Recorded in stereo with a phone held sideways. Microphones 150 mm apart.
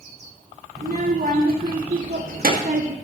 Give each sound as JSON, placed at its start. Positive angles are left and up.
{"t": 0.8, "sound": "a child speaking", "side_deg": -85, "distance_m": 3.0}